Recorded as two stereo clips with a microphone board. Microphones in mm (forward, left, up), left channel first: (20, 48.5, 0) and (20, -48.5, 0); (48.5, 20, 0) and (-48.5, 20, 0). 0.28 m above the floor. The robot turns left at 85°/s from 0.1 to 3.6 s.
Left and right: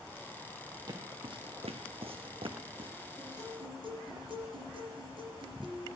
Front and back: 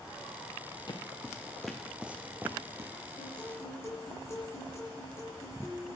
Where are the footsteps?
45° right, 2 m; by 2.9 s 125° right, 1.5 m.